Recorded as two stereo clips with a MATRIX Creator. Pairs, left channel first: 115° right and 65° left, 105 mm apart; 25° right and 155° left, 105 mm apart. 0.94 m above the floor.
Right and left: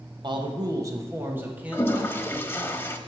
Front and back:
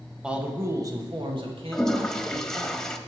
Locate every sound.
0.2 s a man speaking: 80° left, 1.2 m; by 2.7 s 155° left, 2.5 m
1.7 s a toilet flushing: 100° right, 0.7 m